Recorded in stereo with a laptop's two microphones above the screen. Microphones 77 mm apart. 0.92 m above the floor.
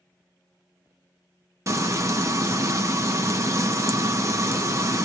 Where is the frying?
40° right (ahead or behind), 0.6 m.